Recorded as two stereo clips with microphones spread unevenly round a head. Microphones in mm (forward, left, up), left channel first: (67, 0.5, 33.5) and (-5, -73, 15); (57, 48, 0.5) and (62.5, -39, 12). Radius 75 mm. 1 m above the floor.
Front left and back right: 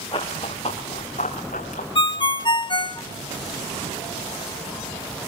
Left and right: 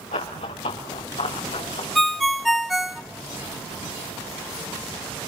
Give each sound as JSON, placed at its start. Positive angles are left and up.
{"t": 0.1, "sound": "running footsteps", "azimuth_deg": 110, "distance_m": 4.0}
{"t": 1.9, "sound": "a ringtone", "azimuth_deg": 5, "distance_m": 1.2}